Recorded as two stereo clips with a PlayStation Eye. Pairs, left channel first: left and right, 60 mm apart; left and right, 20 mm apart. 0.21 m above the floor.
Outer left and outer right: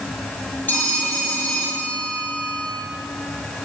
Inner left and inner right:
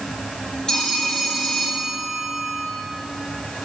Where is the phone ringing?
35° left (ahead or behind), 3.5 m.